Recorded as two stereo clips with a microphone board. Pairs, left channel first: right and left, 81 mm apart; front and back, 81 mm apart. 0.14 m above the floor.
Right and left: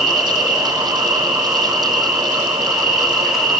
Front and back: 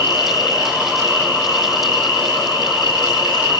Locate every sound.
0.0 s an insect: 5° left, 1.1 m